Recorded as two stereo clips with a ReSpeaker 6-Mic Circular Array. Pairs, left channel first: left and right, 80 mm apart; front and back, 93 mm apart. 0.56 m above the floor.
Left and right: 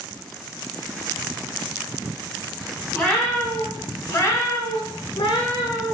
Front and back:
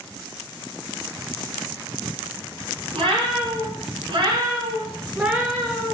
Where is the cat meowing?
165° left, 1.5 m; by 5.9 s 75° left, 0.8 m.